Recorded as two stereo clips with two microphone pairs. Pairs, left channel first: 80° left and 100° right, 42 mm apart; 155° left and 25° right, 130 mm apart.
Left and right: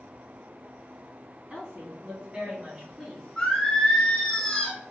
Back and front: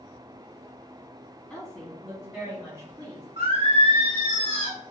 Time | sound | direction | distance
1.5 | a woman speaking | 125° right | 1.5 m
3.4 | singing | 5° left | 1.1 m